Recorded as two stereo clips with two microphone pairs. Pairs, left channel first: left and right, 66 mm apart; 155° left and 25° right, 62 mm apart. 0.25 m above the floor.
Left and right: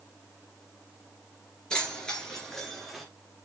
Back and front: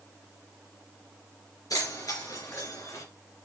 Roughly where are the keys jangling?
Behind.